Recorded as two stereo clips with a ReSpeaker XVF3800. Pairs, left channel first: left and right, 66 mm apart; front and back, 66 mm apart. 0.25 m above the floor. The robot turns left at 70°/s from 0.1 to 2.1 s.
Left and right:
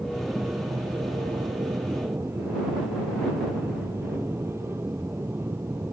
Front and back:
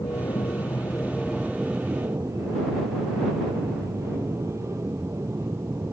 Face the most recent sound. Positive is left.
turn(degrees=-140)